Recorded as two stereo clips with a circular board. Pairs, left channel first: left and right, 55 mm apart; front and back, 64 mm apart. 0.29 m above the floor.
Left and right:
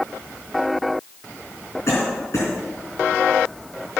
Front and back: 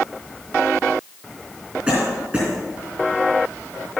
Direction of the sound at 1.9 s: 100° left.